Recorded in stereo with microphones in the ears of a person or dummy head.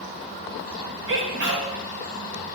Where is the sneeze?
65° right (ahead or behind), 1.1 m.